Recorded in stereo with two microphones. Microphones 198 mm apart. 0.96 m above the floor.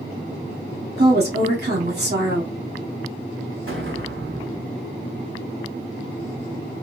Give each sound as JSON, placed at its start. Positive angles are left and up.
{"t": 1.0, "sound": "a woman speaking", "side_deg": -50, "distance_m": 1.3}
{"t": 3.7, "sound": "an explosion", "side_deg": -85, "distance_m": 1.3}